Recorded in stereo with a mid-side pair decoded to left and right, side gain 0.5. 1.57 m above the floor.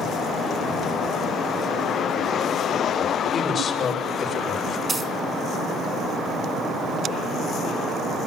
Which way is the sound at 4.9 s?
30° right.